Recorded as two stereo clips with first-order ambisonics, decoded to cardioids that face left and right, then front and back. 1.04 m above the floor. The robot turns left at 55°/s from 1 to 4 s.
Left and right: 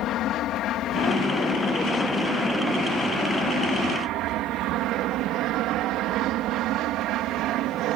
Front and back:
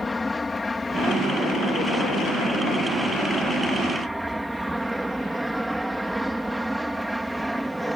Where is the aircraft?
75° left; by 8.0 s 90° right.